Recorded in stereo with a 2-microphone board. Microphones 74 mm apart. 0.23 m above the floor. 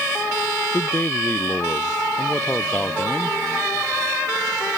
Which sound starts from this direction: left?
A man speaking, at 0.7 s.